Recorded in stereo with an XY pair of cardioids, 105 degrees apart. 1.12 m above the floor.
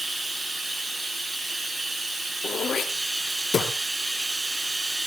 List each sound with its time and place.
0.0 s running water: 15° right, 6 m
2.4 s throat clearing: 45° left, 3 m